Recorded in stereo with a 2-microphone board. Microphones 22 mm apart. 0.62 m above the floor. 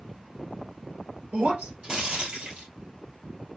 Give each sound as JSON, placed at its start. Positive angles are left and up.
{"t": 1.3, "sound": "breaking glass", "side_deg": -55, "distance_m": 2.0}